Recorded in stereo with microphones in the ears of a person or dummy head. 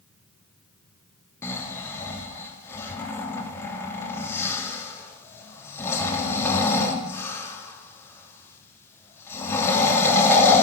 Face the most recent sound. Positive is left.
turn(degrees=10)  # may be behind; listen again after turning